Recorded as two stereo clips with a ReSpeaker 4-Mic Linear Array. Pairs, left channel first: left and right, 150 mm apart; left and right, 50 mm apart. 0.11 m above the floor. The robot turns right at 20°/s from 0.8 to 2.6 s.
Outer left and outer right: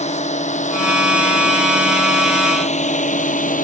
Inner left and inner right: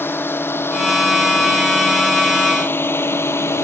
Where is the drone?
50° left (ahead or behind); by 3.7 s 65° left (ahead or behind).